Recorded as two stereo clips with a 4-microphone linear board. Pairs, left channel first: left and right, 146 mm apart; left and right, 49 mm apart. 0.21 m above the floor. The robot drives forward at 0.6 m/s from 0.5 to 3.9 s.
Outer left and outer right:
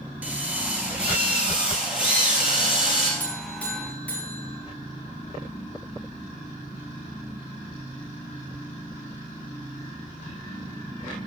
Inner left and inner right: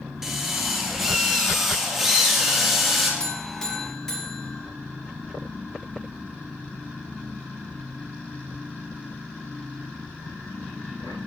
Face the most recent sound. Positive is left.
turn(degrees=10)  # may be behind; listen again after turning